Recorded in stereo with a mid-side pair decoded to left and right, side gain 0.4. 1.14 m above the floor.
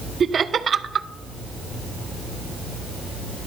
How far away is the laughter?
About 0.6 m.